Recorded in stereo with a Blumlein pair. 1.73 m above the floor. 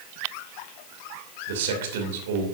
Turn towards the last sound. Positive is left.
turn(degrees=-55)